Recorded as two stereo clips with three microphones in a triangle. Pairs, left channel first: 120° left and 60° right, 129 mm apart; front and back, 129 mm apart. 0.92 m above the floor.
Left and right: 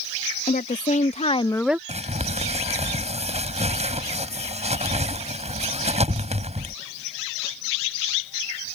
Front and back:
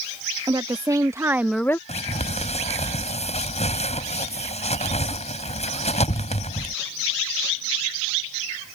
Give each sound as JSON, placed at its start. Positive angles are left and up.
{"t": 0.5, "sound": "a woman speaking", "azimuth_deg": 120}
{"t": 1.9, "sound": "crumpling", "azimuth_deg": -30}